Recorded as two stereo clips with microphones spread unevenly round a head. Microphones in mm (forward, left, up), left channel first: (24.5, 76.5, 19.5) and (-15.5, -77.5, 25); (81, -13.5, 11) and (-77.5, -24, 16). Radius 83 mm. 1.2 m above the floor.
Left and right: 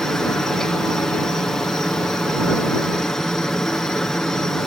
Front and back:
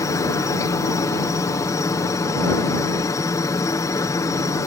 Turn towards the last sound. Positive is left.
turn(degrees=0)